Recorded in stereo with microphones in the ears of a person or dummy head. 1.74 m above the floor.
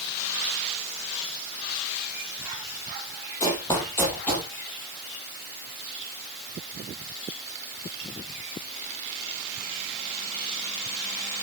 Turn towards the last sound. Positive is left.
turn(degrees=5)  # may be behind; listen again after turning